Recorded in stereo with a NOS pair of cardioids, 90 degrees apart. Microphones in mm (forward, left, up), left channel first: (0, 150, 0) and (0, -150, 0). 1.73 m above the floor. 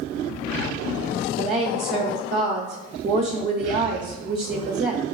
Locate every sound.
1.4 s a woman speaking: 30° right, 0.8 m